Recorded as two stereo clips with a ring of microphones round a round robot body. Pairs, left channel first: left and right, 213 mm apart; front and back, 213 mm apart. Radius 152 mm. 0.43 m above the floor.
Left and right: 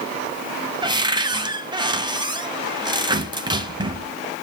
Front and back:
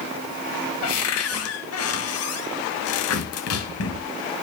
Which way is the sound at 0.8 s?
20° right.